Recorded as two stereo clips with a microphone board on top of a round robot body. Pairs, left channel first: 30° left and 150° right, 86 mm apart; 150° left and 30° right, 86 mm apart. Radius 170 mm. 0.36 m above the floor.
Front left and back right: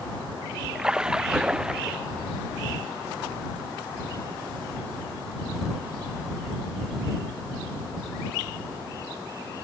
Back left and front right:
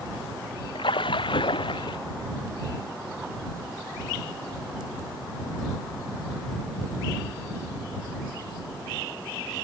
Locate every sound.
0.8 s a splash: 130° left